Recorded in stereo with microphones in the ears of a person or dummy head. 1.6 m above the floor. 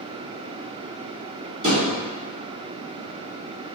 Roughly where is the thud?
Right.